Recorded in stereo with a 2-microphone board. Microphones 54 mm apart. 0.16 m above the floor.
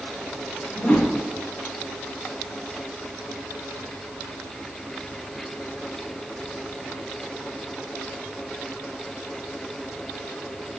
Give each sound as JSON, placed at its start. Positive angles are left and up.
{"t": 0.8, "sound": "a whoosh", "side_deg": 25, "distance_m": 4.0}